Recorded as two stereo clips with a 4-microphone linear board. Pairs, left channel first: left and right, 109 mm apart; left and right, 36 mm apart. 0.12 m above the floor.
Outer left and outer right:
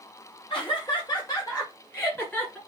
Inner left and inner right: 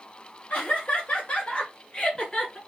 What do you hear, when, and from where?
0.5 s laughter: 50° left (ahead or behind), 2.5 m; by 2.6 s 15° left (ahead or behind), 1.9 m